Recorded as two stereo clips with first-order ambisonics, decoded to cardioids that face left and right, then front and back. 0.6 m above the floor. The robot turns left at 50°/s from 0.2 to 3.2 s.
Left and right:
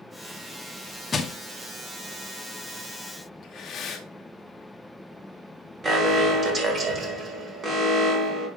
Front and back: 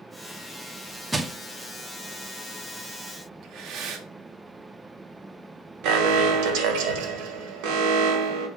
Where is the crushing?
110° left, 0.7 m; by 1.3 s 100° left, 0.7 m.